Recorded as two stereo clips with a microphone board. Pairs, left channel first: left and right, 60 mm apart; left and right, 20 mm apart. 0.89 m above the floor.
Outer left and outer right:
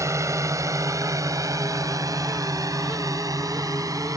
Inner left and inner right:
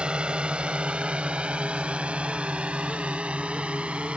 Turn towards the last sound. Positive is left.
turn(degrees=-80)